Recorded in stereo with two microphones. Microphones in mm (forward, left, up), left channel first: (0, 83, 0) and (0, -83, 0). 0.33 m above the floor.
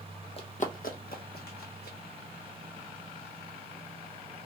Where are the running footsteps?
35° left (ahead or behind), 0.5 m; by 2.0 s 80° left, 1.4 m.